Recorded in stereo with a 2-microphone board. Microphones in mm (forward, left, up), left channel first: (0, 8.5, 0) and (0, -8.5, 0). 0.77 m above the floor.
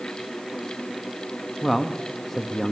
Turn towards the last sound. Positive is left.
turn(degrees=15)  # may be behind; listen again after turning